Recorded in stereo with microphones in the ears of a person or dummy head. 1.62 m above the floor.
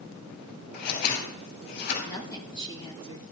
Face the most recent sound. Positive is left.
turn(degrees=20)  # may be behind; listen again after turning